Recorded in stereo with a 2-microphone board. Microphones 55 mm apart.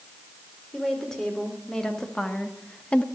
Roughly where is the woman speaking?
Centre.